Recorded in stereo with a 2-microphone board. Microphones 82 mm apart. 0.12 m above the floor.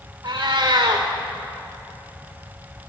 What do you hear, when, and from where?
0.2 s a cat meowing: 50° right (ahead or behind), 2.0 m